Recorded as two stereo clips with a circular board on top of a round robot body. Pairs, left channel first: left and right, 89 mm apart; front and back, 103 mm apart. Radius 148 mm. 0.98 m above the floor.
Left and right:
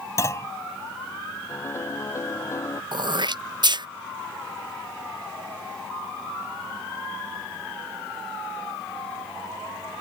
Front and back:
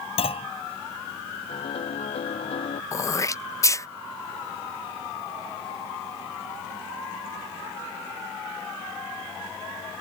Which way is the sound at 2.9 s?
60° right.